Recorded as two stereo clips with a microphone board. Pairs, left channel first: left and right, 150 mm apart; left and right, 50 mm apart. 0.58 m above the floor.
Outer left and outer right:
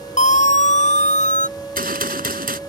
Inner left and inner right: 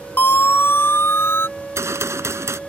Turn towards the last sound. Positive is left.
turn(degrees=-80)